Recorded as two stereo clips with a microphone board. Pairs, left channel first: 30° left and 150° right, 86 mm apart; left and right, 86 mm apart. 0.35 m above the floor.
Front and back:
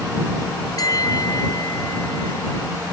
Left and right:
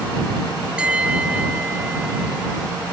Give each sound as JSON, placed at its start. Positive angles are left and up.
{"t": 0.8, "sound": "a bell", "azimuth_deg": -15}